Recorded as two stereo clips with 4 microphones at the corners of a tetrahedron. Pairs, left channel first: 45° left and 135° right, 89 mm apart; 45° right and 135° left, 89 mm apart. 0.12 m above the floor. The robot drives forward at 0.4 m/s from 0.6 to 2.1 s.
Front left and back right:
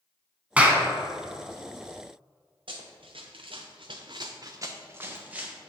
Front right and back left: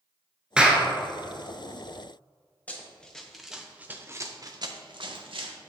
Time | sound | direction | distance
0.6 | a clap | 170° right | 0.8 m
2.7 | running footsteps | 120° right | 1.3 m